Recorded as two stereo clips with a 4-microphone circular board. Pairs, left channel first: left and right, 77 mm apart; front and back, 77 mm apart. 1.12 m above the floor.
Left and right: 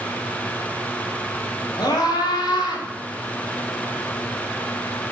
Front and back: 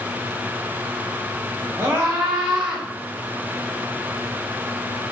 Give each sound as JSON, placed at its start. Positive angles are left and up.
{"t": 1.8, "sound": "a scream", "azimuth_deg": 125, "distance_m": 4.5}